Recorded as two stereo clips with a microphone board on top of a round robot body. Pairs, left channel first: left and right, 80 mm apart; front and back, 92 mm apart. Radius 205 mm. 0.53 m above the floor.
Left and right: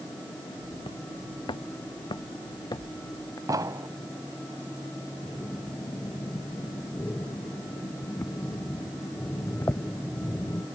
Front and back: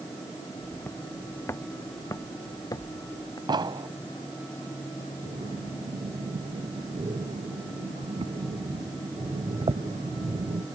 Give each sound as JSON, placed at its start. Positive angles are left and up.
{"t": 0.6, "sound": "footsteps", "azimuth_deg": 70}
{"t": 3.5, "sound": "an explosion", "azimuth_deg": -140}
{"t": 5.2, "sound": "breathing", "azimuth_deg": 155}